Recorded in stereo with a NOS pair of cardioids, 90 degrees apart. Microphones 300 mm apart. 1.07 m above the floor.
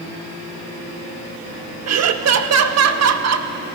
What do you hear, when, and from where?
1.9 s laughter: 60° right, 1.6 m